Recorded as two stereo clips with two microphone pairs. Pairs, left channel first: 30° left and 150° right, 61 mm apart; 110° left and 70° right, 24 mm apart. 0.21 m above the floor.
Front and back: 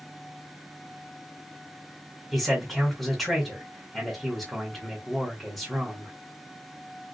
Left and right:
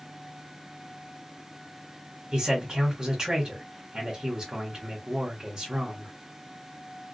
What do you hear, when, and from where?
2.3 s a man speaking: 50° right, 1.0 m